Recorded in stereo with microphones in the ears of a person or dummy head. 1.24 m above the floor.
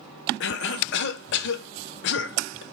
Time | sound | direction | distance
0.4 | a cough | 65° left (ahead or behind) | 0.6 m